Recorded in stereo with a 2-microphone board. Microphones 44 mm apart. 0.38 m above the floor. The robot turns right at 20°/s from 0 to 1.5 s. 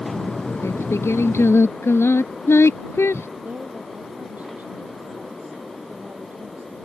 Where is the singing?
85° left; by 3.3 s 70° left (ahead or behind).